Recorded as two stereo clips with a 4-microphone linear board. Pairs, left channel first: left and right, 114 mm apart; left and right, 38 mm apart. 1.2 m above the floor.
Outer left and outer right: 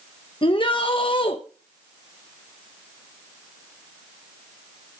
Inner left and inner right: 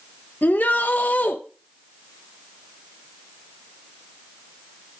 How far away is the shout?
About 1.3 m.